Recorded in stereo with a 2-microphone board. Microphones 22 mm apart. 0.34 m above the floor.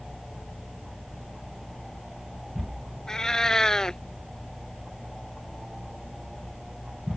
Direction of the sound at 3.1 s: 25° left (ahead or behind).